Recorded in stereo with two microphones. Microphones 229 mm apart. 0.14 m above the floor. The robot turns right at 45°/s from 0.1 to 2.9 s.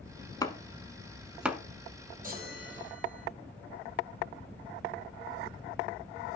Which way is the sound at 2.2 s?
35° right (ahead or behind).